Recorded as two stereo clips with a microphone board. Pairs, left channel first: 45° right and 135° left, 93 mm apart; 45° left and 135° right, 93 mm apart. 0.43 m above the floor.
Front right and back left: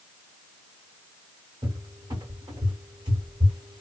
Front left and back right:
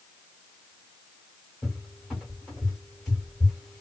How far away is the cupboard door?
About 2 m.